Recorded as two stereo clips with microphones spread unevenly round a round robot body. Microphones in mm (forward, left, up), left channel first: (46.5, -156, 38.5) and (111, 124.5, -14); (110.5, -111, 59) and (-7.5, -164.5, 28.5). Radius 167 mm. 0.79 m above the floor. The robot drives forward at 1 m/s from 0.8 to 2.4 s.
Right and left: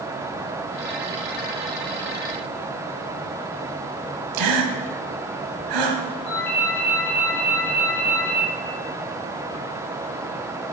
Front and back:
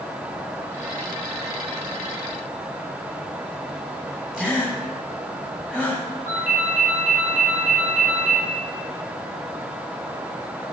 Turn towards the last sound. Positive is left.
turn(degrees=-150)